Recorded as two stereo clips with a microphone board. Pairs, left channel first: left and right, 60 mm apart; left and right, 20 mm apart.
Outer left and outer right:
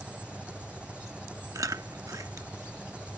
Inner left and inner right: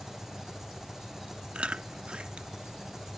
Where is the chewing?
65° right (ahead or behind).